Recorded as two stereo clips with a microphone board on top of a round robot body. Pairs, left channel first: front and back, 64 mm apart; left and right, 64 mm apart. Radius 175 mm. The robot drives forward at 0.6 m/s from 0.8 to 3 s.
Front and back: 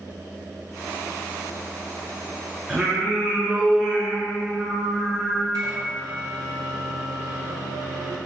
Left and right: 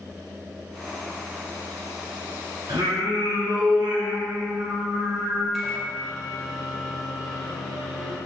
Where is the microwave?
175° right, 2 m.